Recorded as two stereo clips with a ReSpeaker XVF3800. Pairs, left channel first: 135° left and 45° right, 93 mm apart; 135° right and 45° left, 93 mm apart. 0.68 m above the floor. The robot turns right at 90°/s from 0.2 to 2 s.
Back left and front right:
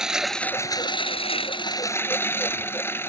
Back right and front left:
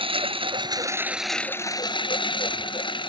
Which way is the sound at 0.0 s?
40° left.